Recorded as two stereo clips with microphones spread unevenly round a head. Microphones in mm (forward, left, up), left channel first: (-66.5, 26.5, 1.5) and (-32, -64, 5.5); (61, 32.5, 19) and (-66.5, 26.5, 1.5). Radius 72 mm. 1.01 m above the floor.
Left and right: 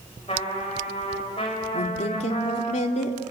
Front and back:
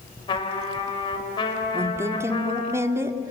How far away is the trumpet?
About 5.5 m.